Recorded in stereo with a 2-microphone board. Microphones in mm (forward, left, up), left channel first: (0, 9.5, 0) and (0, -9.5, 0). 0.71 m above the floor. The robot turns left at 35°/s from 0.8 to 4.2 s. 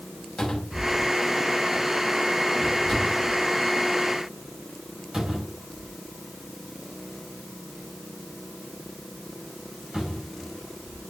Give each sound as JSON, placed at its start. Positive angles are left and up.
{"t": 0.4, "sound": "a cupboard door", "side_deg": 70, "distance_m": 4.0}